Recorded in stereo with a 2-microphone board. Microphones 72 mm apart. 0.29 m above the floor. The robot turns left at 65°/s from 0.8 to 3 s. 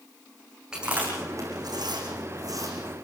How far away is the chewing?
About 7 m.